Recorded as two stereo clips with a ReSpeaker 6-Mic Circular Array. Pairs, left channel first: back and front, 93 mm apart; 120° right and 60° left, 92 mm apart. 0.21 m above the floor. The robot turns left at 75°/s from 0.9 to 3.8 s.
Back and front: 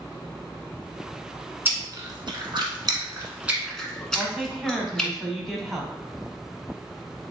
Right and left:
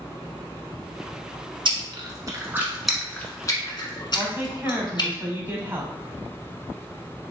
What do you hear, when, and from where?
1.6 s chewing: 65° left, 1.2 m; by 5.1 s 100° right, 1.2 m
4.2 s a woman speaking: 90° left, 1.0 m